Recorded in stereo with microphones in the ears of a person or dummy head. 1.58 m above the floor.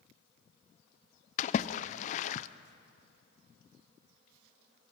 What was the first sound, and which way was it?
A splash, 40° left (ahead or behind).